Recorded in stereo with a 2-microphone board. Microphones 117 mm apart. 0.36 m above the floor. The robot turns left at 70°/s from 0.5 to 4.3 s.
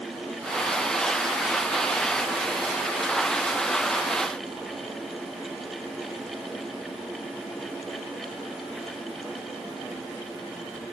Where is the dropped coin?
I don't hear a dropped coin.